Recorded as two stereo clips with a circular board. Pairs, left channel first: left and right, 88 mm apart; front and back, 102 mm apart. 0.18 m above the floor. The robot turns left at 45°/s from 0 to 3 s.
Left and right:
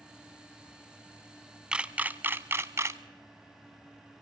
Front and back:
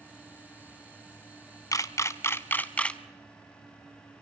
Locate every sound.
1.7 s a camera shutter: 20° right, 0.6 m; by 3.0 s 75° right, 0.6 m